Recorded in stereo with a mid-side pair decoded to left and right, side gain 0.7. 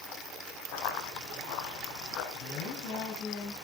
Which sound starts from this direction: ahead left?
A woman speaking, at 2.3 s.